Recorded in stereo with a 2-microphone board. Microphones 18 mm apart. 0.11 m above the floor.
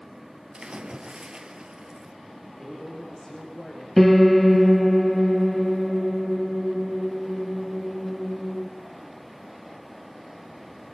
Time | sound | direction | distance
0.5 | a splash | 45° right (ahead or behind) | 2 m
2.4 | a man speaking | 35° left (ahead or behind) | 6.5 m
4.0 | a piano | 10° left (ahead or behind) | 1.5 m